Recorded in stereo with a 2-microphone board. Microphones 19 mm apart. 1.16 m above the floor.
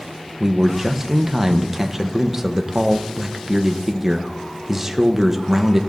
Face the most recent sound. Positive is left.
turn(degrees=-10)  # may be behind; listen again after turning